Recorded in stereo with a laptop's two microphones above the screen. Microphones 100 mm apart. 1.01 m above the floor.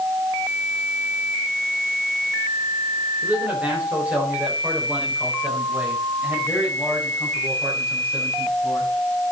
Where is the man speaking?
15° right (ahead or behind), 4 m.